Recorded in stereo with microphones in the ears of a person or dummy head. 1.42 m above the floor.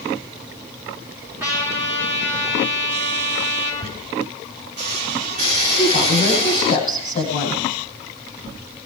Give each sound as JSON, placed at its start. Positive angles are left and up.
{"t": 1.4, "sound": "a trumpet", "side_deg": -10, "distance_m": 5.5}
{"t": 3.8, "sound": "a squeak", "side_deg": -40, "distance_m": 3.0}
{"t": 5.8, "sound": "a woman speaking", "side_deg": 40, "distance_m": 10.0}